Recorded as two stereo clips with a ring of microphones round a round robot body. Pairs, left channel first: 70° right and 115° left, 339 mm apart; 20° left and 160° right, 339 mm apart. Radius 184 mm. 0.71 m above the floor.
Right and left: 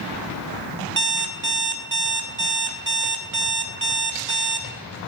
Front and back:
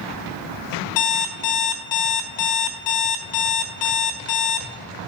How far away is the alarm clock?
About 1.2 m.